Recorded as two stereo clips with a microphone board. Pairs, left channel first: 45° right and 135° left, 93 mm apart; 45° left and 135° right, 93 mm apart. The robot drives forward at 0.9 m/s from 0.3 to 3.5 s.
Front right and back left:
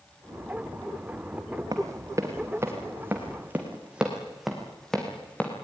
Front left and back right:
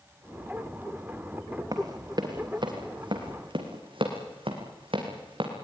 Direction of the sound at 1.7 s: 175° right.